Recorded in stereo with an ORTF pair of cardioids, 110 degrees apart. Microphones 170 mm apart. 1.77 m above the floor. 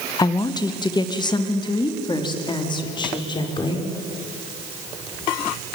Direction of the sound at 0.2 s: 25° left.